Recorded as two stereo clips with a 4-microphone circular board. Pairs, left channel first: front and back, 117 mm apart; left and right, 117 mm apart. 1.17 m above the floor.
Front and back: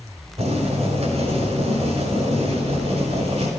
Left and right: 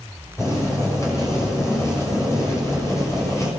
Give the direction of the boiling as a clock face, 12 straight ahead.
7 o'clock.